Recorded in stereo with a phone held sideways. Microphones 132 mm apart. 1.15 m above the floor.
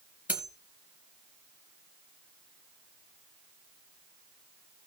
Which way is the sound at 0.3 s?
10° right (ahead or behind).